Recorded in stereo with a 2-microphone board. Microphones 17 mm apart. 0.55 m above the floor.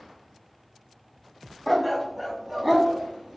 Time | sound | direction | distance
1.7 | a dog barking | centre (ahead or behind) | 0.8 m